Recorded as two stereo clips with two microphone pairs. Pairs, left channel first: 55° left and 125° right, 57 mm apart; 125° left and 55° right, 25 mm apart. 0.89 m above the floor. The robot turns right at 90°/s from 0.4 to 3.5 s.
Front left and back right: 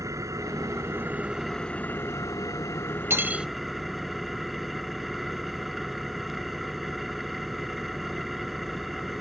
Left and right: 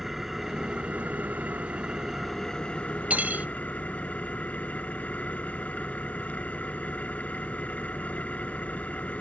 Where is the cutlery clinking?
80° right; by 3.5 s 45° right.